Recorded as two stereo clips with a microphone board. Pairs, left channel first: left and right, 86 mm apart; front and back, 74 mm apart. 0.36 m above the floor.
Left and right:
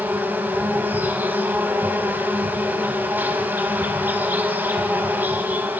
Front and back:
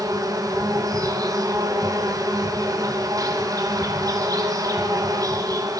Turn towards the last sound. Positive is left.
turn(degrees=-155)